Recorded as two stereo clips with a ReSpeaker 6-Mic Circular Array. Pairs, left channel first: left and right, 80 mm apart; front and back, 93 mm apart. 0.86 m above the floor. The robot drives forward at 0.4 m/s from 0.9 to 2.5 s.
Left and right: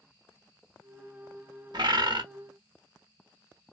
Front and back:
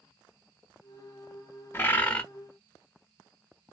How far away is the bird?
About 0.7 m.